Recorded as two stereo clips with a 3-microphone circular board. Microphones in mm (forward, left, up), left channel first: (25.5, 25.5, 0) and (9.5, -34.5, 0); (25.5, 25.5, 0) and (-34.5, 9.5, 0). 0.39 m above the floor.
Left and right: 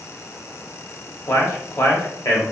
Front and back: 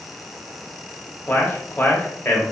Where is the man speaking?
65° left, 1.3 m.